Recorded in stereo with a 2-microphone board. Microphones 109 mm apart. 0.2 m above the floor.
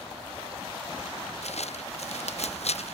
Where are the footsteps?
80° left; by 2.9 s 75° left (ahead or behind).